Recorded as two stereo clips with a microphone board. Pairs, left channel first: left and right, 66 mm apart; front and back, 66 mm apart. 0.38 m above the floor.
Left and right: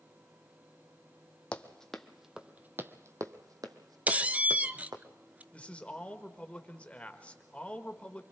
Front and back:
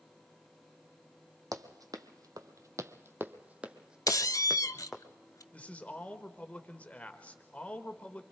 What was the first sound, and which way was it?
Running footsteps, 160° left.